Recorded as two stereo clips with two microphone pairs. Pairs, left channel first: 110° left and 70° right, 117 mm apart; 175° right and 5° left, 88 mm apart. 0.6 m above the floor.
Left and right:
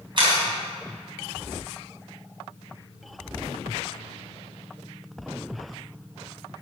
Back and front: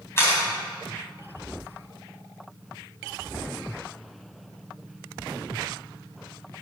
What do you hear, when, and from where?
0.2 s a camera shutter: 115° right, 3.5 m